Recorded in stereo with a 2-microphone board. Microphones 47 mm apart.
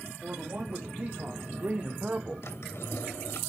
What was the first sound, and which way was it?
A man speaking, 35° right (ahead or behind).